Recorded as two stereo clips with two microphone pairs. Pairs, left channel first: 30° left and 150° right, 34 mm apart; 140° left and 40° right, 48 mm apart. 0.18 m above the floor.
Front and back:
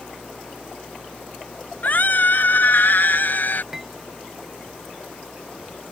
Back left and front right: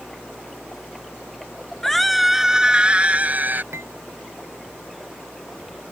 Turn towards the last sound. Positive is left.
turn(degrees=-70)